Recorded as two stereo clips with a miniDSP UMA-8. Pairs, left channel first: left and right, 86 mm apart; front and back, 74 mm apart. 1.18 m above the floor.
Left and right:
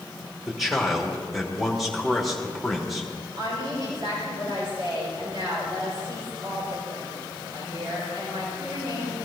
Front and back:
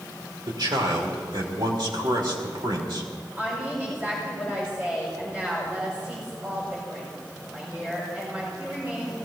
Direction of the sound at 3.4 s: 115° right.